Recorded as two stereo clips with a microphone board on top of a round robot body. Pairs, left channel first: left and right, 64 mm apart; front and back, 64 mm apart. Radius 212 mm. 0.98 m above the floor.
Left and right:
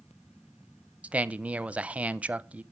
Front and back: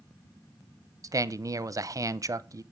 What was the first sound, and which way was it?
A man speaking, 155° right.